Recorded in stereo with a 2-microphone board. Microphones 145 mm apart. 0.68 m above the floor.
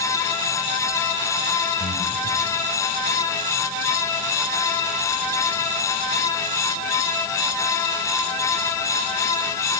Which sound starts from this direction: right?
Breathing, at 1.8 s.